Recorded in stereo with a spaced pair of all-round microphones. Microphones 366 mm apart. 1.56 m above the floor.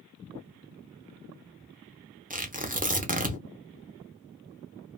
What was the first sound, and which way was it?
Tearing paper, 20° right (ahead or behind).